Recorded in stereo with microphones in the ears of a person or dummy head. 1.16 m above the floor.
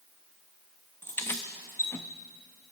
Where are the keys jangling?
15° left (ahead or behind), 0.7 m.